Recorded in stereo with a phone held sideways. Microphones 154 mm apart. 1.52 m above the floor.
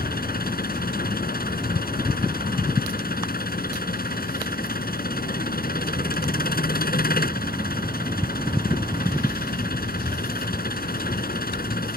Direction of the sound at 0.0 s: 80° left.